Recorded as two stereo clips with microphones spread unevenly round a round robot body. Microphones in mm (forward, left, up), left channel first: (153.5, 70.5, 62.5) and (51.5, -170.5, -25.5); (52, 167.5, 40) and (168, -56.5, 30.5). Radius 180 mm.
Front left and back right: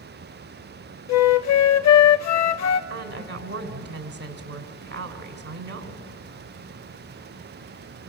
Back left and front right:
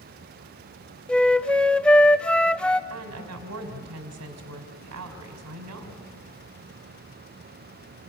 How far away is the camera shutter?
I don't hear a camera shutter.